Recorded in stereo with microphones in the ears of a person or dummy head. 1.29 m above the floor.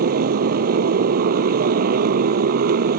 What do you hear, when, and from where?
0.0 s a motorcycle: 55° right (ahead or behind)